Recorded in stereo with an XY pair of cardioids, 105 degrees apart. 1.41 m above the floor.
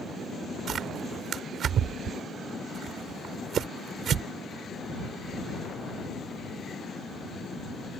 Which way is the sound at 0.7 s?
55° right.